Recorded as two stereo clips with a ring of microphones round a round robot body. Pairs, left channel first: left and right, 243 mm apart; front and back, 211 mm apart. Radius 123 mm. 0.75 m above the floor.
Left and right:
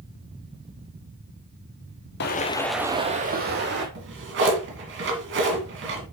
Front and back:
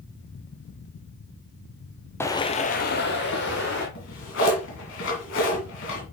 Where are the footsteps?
75° left, 0.9 m; by 3.9 s 45° right, 1.9 m.